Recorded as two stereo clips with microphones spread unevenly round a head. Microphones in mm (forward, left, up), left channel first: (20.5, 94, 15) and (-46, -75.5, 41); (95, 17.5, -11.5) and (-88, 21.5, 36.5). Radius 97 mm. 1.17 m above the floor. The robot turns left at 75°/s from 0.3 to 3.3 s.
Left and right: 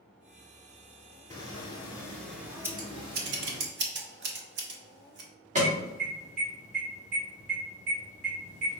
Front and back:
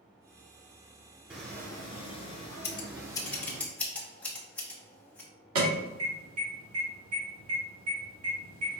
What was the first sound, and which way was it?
Footsteps, 140° left.